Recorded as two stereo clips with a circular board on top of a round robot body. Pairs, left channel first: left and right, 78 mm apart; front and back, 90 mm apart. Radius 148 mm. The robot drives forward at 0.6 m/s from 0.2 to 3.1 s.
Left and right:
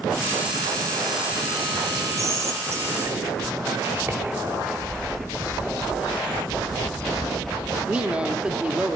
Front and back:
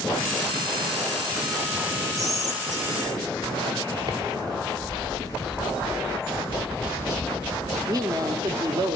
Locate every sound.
2.2 s whispering: 135° right, 2.5 m; by 5.8 s 140° right, 3 m
4.8 s a bird: 100° left, 4 m
7.8 s a woman speaking: 160° right, 1.0 m